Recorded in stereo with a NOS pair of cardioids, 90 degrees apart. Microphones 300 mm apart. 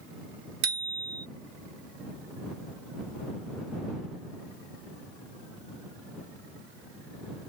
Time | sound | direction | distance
0.6 | a bicycle bell | 65° right | ?